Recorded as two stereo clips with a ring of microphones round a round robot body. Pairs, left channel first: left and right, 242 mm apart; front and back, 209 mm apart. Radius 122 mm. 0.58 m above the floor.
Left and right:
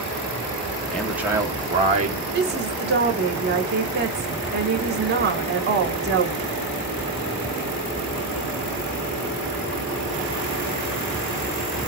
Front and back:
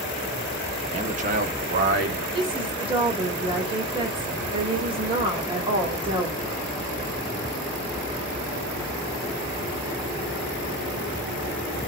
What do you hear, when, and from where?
0.9 s a man speaking: 170° left, 0.9 m; by 2.2 s 145° right, 1.4 m
2.3 s a woman speaking: 120° right, 1.4 m